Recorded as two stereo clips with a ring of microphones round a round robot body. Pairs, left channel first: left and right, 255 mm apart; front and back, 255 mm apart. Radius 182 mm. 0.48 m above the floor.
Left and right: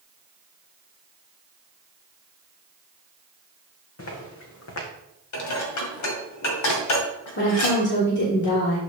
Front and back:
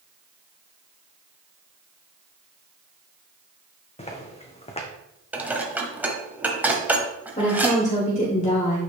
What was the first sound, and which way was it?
Footsteps, 65° left.